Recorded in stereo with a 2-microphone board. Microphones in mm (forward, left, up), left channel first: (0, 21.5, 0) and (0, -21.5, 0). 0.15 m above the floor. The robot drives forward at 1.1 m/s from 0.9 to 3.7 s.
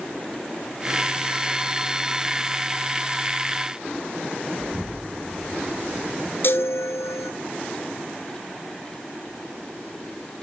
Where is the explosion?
5° left (ahead or behind), 0.8 m.